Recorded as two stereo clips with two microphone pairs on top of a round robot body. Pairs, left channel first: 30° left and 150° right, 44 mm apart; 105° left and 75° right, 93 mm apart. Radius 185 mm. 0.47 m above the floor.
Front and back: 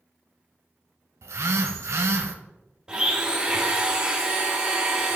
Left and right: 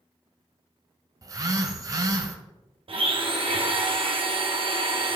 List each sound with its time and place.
1.2 s a phone buzzing: 130° right, 0.7 m
2.9 s a blender: 80° right, 1.6 m